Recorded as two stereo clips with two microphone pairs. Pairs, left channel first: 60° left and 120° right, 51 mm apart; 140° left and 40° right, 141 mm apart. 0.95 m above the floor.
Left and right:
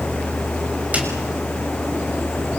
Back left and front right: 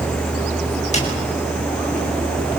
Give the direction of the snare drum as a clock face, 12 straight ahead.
6 o'clock.